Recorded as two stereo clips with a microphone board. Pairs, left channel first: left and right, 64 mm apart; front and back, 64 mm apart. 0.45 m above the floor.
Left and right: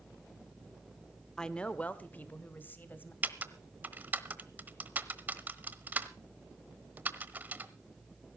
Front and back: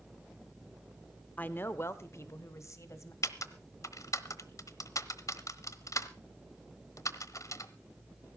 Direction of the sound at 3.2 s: 30° right.